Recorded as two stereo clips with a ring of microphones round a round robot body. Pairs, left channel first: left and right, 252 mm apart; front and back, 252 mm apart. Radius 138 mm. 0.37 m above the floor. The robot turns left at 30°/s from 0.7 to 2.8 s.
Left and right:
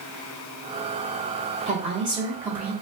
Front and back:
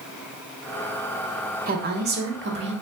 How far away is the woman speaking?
About 1.0 m.